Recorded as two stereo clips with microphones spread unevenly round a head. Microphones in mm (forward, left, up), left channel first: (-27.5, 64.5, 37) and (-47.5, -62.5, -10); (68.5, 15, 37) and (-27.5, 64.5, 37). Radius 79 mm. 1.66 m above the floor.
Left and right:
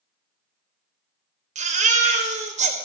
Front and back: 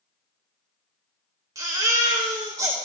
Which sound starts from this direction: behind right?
A baby crying, at 1.6 s.